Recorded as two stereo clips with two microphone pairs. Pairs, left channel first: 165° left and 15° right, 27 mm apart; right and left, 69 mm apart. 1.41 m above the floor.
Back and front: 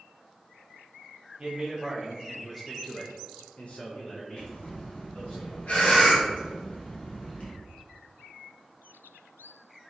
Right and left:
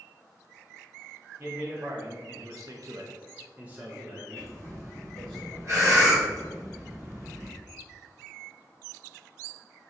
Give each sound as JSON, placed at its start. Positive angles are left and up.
{"t": 1.4, "sound": "a man speaking", "azimuth_deg": 40, "distance_m": 1.1}
{"t": 4.4, "sound": "breathing", "azimuth_deg": 130, "distance_m": 1.0}